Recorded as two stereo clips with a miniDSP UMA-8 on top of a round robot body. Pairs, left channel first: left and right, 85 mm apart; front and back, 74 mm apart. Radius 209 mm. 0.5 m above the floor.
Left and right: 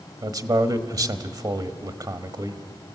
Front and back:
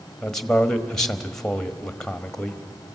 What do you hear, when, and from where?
0.2 s a man speaking: 80° right, 1.5 m